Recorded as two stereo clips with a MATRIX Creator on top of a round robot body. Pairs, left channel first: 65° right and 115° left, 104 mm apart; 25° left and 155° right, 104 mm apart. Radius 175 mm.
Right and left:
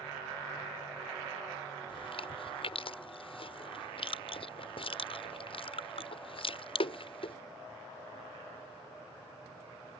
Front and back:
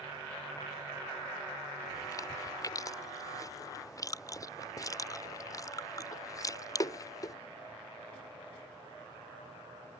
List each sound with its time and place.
1.9 s chewing: 35° right